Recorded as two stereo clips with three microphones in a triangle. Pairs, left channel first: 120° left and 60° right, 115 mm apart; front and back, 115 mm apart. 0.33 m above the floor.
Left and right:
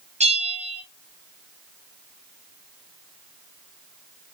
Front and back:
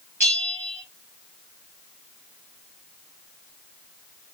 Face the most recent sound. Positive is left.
turn(degrees=-70)